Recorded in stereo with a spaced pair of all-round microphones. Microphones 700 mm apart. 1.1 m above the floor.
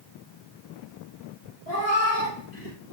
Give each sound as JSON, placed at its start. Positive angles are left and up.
{"t": 1.7, "sound": "a cat meowing", "side_deg": 65, "distance_m": 3.5}